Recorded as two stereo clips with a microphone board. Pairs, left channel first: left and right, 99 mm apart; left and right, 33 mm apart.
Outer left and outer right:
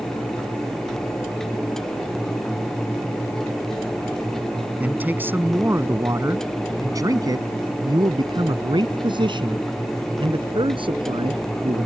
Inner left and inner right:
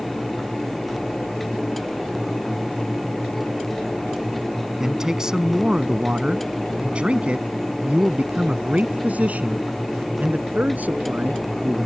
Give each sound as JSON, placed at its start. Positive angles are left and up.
{"t": 4.8, "sound": "a man speaking", "side_deg": -15}